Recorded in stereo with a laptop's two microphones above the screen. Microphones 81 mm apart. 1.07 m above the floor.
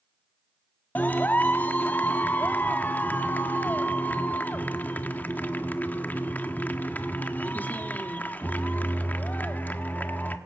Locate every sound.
0.9 s a clap: 20° left (ahead or behind), 1.6 m